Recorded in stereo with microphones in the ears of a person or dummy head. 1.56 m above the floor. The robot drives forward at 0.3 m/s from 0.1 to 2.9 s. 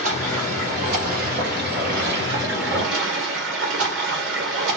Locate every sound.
0.0 s running water: 40° right (ahead or behind), 1.5 m; by 4.8 s 70° right (ahead or behind), 1.0 m